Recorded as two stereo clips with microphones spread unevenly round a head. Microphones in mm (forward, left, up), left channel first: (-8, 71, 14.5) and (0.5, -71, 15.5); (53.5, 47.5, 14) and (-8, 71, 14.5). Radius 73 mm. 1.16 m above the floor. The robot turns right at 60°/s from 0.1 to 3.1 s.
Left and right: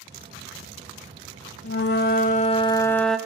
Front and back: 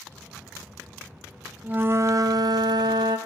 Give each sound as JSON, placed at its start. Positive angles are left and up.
{"t": 1.6, "sound": "a flute", "azimuth_deg": 90, "distance_m": 0.7}